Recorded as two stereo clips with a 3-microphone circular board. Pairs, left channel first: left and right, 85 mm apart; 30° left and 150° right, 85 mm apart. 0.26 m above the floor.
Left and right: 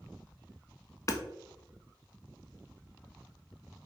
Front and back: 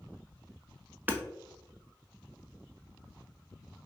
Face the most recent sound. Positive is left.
turn(degrees=145)